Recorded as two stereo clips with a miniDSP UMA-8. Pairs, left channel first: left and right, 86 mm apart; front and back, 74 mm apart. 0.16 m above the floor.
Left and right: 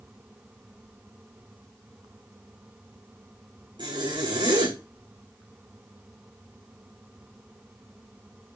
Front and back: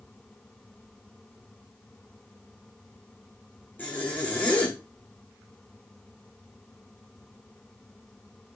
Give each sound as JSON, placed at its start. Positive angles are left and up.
{"t": 3.8, "sound": "a zipper", "azimuth_deg": -65, "distance_m": 6.5}